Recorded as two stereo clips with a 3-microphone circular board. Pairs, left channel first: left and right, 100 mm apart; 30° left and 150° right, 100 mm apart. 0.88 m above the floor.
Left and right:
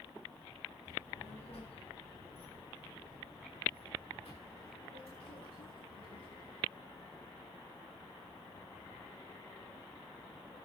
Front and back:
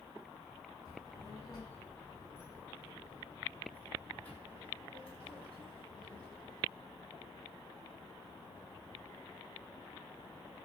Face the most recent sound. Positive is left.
turn(degrees=115)